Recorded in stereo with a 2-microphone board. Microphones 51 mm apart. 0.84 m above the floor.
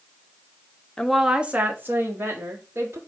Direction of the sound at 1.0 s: 15° left (ahead or behind).